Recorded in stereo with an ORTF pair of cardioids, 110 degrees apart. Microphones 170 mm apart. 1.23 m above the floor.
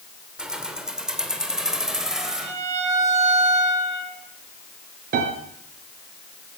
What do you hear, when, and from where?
0.4 s keys jangling: 5° right, 2.5 m
2.2 s a violin: 40° right, 7.5 m
5.1 s a piano: 60° right, 4.5 m